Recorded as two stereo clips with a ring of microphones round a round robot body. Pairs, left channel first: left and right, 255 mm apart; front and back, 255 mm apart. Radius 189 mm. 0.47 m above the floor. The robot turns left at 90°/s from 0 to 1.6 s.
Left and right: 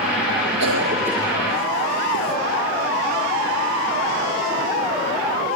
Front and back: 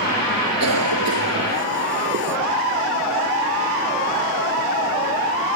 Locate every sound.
0.6 s a cough: 130° right; by 2.4 s 140° left